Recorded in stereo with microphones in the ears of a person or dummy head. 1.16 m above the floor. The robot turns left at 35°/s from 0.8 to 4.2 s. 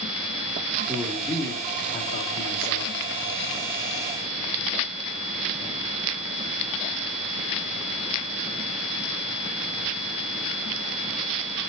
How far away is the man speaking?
About 2.5 m.